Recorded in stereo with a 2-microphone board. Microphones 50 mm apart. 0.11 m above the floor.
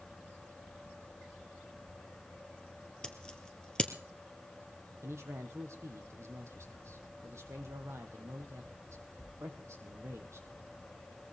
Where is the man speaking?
65° right (ahead or behind), 3.5 m.